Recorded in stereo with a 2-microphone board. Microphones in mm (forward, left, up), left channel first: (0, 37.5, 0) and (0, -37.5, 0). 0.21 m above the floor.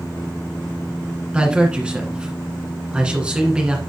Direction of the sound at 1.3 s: 15° right (ahead or behind).